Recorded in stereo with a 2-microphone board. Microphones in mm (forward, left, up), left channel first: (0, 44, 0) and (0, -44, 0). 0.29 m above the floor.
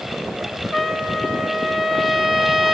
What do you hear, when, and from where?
0.7 s a trumpet: 5° right (ahead or behind), 0.8 m